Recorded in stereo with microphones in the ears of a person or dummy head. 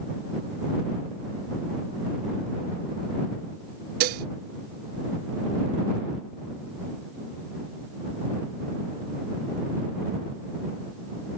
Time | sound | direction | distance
4.0 | dishes clattering | 55° right (ahead or behind) | ?